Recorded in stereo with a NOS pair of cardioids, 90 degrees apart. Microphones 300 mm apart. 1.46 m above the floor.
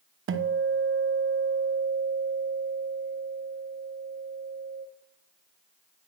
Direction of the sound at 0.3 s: 45° right.